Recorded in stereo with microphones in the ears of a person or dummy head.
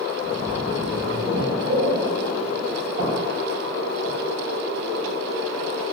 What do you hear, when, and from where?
0.2 s a splash: 30° right (ahead or behind), 1.5 m